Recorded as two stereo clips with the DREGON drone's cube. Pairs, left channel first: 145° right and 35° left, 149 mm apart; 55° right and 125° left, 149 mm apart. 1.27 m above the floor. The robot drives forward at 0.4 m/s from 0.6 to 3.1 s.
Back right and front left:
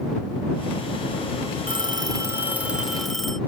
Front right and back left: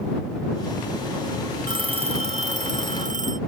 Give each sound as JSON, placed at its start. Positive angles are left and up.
{"t": 1.7, "sound": "a phone ringing", "azimuth_deg": 75}